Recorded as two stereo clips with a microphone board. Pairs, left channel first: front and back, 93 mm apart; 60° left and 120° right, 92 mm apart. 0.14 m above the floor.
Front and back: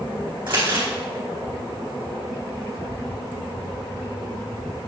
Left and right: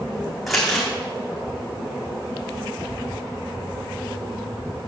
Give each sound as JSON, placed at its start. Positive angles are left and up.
{"t": 0.5, "sound": "crumpling", "azimuth_deg": 150, "distance_m": 5.0}